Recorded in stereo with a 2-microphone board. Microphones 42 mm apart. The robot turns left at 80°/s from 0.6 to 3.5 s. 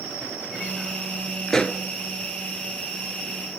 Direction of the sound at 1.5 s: 10° left (ahead or behind).